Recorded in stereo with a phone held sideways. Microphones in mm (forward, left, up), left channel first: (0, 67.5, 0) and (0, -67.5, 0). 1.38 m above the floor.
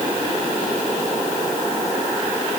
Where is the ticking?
No ticking in this recording.